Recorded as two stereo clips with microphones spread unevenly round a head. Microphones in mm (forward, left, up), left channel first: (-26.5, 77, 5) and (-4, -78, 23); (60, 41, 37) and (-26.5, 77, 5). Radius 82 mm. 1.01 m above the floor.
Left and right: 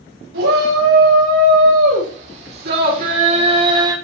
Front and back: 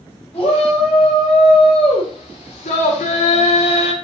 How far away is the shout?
About 6 m.